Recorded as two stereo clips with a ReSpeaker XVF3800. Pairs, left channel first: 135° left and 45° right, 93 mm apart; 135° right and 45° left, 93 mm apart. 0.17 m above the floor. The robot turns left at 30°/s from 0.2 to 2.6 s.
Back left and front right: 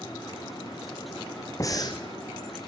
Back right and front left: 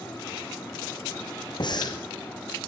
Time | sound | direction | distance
1.6 | breathing | 170° right | 2.5 m